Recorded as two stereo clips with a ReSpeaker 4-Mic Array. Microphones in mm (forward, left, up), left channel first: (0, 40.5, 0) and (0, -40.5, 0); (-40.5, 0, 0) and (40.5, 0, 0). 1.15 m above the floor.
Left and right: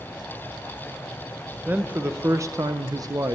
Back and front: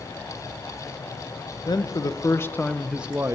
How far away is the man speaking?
About 1.3 m.